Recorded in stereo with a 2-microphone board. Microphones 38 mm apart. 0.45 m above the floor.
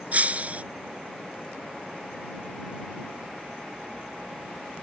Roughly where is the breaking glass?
Right.